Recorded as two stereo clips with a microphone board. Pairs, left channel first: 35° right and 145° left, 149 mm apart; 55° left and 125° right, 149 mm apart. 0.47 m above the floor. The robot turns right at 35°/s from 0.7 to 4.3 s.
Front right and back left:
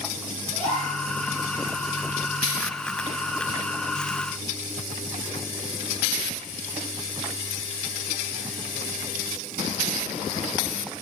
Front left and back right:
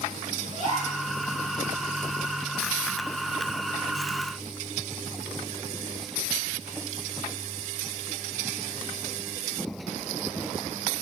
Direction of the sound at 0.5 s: 160° right.